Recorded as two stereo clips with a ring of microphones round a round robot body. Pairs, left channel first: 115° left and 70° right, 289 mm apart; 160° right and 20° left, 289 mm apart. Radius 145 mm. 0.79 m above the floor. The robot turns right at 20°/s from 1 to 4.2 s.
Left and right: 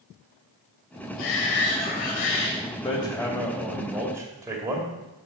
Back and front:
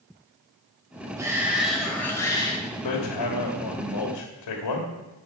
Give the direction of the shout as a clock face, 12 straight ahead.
9 o'clock.